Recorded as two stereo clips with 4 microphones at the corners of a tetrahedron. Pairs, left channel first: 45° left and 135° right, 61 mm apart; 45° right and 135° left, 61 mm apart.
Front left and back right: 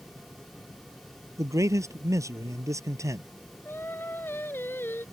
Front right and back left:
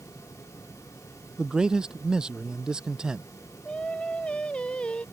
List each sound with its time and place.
1.4 s a man speaking: 150° right
3.6 s singing: 20° left